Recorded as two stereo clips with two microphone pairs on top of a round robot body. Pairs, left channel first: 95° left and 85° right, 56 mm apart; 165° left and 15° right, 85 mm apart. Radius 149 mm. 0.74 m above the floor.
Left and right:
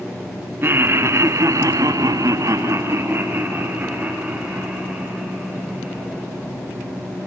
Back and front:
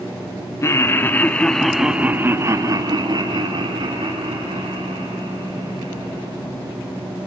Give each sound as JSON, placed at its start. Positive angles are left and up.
{"t": 0.6, "sound": "laughter", "azimuth_deg": -135, "distance_m": 2.5}